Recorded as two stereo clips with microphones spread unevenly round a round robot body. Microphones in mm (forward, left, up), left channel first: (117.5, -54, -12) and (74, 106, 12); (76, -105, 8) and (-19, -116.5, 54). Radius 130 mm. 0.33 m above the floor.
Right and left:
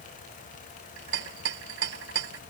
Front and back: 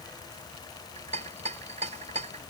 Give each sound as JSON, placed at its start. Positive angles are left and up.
{"t": 1.0, "sound": "a rattle", "azimuth_deg": 140}